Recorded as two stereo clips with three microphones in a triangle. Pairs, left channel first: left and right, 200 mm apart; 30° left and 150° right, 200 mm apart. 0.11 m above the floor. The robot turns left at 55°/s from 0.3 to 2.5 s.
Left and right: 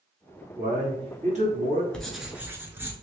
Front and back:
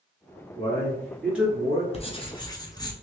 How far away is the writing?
About 0.7 m.